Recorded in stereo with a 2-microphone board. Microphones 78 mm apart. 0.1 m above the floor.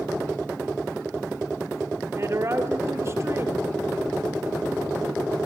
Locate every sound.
2.2 s a woman speaking: 40° right (ahead or behind), 1.6 m